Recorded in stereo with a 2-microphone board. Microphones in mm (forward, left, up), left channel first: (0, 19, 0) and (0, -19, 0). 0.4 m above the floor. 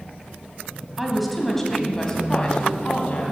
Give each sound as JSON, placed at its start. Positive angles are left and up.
{"t": 1.0, "sound": "a woman speaking", "side_deg": -5, "distance_m": 2.5}